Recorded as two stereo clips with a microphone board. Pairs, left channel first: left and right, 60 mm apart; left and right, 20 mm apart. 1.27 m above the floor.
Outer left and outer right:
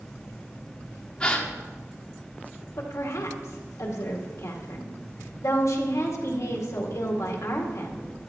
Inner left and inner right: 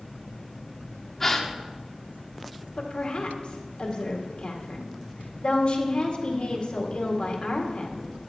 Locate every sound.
1.2 s a gasp: 20° left (ahead or behind), 1.2 m
2.8 s a woman speaking: 60° left (ahead or behind), 2.0 m